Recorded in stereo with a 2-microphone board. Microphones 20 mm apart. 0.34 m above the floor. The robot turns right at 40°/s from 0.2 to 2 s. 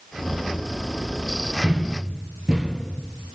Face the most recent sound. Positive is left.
turn(degrees=-45)  # may be behind; listen again after turning